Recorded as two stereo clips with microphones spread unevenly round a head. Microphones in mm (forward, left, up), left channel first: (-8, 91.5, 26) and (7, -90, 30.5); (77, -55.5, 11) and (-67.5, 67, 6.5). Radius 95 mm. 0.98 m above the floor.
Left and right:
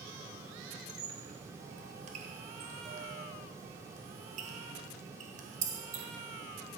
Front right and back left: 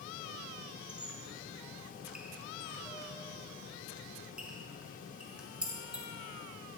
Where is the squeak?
135° right, 1.3 m.